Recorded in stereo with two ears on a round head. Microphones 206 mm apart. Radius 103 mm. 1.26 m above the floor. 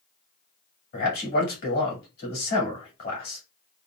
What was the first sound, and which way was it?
A man speaking, 40° left (ahead or behind).